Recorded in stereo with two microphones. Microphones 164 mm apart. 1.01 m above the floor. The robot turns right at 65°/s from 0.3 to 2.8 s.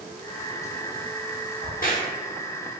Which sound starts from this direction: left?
A crack, at 1.6 s.